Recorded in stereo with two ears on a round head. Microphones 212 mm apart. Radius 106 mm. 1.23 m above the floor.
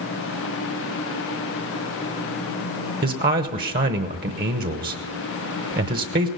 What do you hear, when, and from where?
3.0 s a man speaking: 40° right (ahead or behind), 1.0 m